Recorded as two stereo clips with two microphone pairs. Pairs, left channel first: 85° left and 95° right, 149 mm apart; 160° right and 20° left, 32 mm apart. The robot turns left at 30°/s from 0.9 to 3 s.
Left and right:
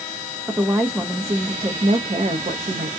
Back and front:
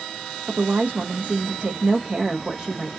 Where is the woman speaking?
15° right, 0.6 m; by 2.9 s 75° right, 0.6 m.